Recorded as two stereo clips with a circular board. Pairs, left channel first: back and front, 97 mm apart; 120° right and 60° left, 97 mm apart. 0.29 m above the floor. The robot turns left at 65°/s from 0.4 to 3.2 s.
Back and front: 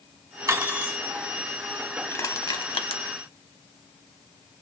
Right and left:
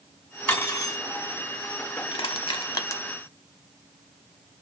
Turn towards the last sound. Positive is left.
turn(degrees=170)